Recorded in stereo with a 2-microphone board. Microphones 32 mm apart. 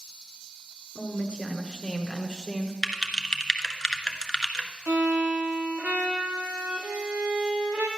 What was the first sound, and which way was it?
A woman speaking, 35° left (ahead or behind).